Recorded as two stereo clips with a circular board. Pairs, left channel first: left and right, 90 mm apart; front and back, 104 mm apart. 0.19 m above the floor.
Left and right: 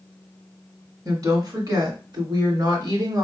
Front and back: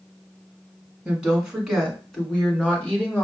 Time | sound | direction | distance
1.1 | a woman speaking | 105° right | 1.7 m